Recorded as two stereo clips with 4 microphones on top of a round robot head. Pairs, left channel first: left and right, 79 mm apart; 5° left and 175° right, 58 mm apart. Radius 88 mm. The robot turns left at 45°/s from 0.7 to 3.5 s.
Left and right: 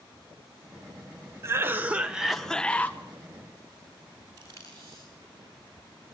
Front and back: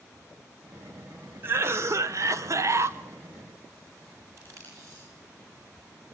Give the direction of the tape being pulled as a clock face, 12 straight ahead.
5 o'clock.